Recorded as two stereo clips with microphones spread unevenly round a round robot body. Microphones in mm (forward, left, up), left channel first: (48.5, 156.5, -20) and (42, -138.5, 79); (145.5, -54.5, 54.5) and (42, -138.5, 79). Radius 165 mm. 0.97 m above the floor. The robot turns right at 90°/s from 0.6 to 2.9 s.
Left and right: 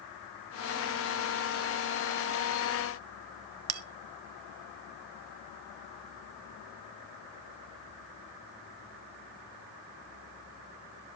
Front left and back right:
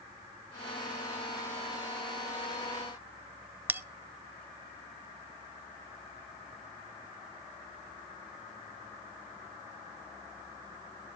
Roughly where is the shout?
I don't hear a shout.